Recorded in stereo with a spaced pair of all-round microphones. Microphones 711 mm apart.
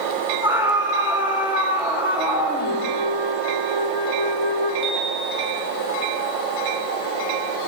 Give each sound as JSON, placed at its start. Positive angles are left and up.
{"t": 0.4, "sound": "a scream", "side_deg": -5, "distance_m": 6.5}
{"t": 2.6, "sound": "a flute", "side_deg": -40, "distance_m": 4.5}
{"t": 4.8, "sound": "a chime", "side_deg": -25, "distance_m": 2.5}